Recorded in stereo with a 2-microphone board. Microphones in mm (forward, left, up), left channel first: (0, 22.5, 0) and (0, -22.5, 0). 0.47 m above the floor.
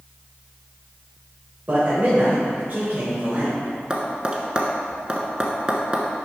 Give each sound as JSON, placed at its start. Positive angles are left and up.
{"t": 1.7, "sound": "a man speaking", "side_deg": -45, "distance_m": 1.9}
{"t": 3.9, "sound": "tapping", "side_deg": -20, "distance_m": 1.1}